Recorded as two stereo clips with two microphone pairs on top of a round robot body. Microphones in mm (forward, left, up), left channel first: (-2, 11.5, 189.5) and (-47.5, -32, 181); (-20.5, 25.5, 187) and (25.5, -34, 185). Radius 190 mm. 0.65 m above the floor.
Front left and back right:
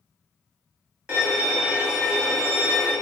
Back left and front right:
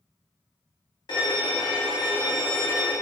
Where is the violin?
155° left, 0.7 m.